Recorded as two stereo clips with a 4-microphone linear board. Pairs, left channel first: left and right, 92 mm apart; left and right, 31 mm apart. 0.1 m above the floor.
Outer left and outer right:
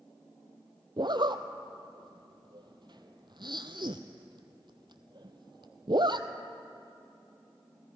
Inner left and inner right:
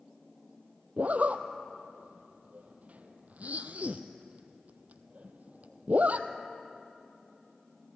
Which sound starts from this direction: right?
A zipper, at 1.0 s.